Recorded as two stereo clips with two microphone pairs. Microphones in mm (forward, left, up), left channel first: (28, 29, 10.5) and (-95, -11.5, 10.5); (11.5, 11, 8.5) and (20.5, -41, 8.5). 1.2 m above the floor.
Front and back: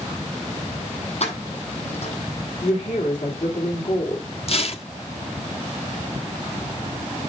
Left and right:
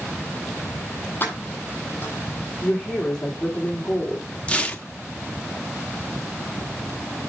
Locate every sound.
1.2 s keys jangling: 50° left, 7 m
2.6 s a woman speaking: 20° left, 2.5 m
4.5 s tearing paper: 40° left, 0.9 m